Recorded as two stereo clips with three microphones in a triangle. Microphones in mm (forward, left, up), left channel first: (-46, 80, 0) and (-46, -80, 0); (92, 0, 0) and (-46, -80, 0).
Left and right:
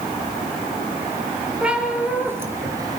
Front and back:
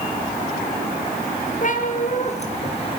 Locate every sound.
1.6 s a cat meowing: 5° right, 3 m; by 3.0 s 25° right, 2.5 m